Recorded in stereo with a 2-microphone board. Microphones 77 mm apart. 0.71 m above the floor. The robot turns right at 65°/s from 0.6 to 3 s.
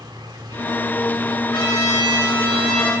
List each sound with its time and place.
0.0 s an insect: 115° right, 1.1 m; by 3.0 s 40° left, 1.1 m
1.5 s a trumpet: 95° left, 4.5 m; by 2.9 s 175° right, 4.5 m